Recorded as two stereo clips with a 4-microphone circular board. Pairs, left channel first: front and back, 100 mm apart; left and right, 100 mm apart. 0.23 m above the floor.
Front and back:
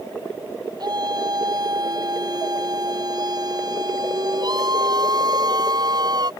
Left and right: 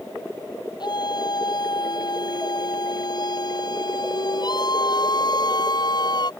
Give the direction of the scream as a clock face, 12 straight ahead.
8 o'clock.